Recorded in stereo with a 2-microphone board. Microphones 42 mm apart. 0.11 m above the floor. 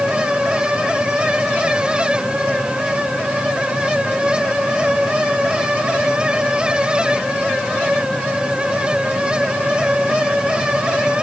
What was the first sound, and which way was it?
Only background noise.